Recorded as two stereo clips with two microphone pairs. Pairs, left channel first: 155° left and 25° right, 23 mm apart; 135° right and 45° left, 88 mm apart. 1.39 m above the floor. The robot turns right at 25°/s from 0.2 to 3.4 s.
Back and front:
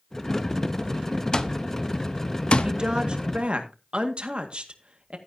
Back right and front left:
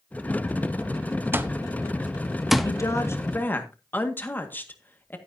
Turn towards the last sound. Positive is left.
turn(degrees=-70)